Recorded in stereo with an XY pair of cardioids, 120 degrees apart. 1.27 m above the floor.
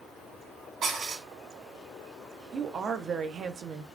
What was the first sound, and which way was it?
Dishes clattering, 60° right.